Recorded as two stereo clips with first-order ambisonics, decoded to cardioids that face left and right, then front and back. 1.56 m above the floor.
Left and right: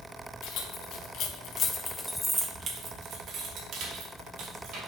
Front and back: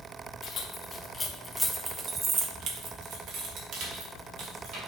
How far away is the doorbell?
No doorbell in this recording.